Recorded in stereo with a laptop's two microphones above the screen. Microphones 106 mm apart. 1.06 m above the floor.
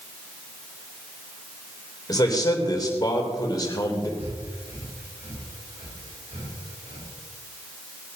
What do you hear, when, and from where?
2.1 s a man speaking: 35° left (ahead or behind), 3.5 m
4.2 s breathing: 70° right (ahead or behind), 5.5 m